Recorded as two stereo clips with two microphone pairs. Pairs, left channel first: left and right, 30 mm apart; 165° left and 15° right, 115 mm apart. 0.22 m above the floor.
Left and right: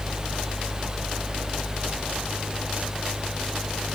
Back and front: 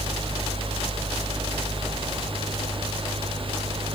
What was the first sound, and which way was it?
Only background noise.